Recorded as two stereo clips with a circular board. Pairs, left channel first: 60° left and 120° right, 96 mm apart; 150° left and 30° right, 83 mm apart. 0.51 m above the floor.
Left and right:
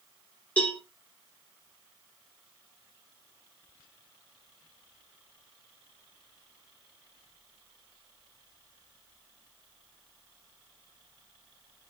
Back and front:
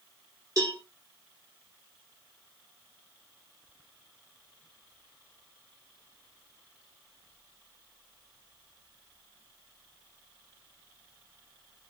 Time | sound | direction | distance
0.6 | a cowbell | 5° right | 1.1 m